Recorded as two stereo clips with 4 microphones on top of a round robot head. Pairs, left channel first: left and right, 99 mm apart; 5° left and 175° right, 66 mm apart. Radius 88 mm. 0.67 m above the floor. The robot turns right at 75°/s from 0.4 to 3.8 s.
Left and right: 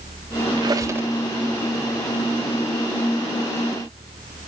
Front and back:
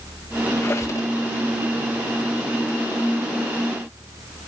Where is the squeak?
55° right, 1.1 m; by 1.1 s 15° right, 1.1 m.